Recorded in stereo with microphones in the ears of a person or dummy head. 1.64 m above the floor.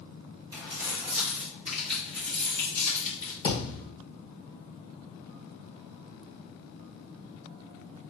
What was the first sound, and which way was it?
Keys jangling, 20° right (ahead or behind).